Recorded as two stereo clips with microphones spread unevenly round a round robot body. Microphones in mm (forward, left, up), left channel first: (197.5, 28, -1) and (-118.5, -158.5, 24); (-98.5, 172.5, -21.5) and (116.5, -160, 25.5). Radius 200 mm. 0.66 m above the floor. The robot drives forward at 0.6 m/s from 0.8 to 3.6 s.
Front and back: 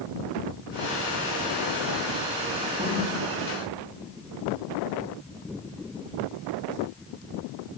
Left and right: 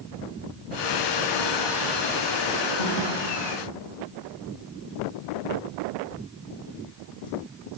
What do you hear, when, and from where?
2.8 s a thud: 140° left, 7 m